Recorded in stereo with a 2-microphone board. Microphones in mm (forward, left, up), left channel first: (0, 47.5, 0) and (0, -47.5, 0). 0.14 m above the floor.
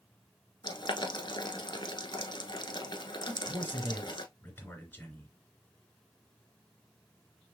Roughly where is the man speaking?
Centre.